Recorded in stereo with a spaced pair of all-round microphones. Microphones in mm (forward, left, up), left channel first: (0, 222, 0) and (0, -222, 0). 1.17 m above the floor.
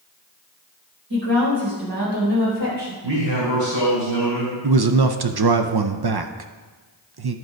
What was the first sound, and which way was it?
A woman speaking, 50° right (ahead or behind).